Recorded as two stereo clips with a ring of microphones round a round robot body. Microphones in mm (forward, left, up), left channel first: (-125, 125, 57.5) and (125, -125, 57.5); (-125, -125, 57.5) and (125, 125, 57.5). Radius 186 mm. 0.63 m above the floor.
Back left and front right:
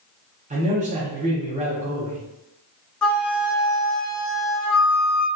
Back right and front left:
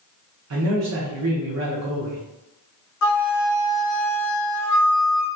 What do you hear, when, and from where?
0.5 s a man speaking: 20° left, 0.8 m
3.0 s a flute: 140° right, 0.7 m